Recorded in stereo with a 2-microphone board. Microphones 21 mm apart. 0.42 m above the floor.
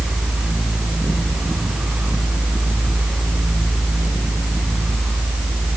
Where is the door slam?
No door slam in this recording.